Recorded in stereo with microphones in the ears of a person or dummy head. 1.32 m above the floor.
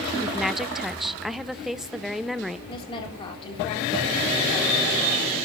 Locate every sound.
0.2 s a woman speaking: 5° right (ahead or behind), 0.6 m
2.7 s a woman speaking: 25° left (ahead or behind), 3.5 m